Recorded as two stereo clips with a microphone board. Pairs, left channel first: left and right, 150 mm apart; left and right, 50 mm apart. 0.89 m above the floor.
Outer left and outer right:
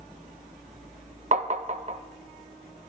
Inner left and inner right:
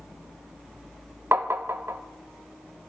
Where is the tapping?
55° right (ahead or behind), 0.5 m.